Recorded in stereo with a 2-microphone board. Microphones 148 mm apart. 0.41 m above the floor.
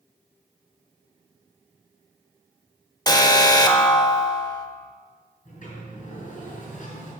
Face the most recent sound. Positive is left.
turn(degrees=65)  # may be behind; listen again after turning